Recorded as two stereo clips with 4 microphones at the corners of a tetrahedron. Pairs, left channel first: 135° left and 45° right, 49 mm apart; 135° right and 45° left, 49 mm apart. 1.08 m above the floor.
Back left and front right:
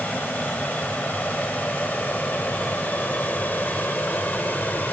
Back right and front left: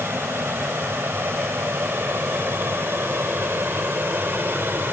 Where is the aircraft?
80° left; by 4.9 s 85° left.